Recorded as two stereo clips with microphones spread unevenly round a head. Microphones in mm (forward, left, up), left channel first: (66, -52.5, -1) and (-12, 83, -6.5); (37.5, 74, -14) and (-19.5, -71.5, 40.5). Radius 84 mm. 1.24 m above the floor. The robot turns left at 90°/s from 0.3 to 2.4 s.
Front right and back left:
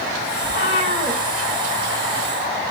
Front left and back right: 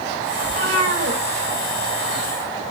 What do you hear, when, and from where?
0.4 s a cat meowing: 80° right, 3.5 m; by 1.2 s 150° right, 3.5 m